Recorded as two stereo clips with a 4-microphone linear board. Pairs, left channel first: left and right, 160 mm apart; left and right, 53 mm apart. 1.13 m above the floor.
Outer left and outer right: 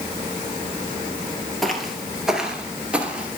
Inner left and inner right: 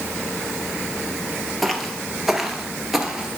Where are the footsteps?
Centre (ahead or behind), 1.2 m; by 3.4 s 10° right (ahead or behind), 1.2 m.